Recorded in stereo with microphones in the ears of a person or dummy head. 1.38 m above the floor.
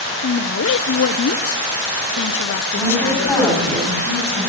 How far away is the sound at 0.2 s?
About 0.6 m.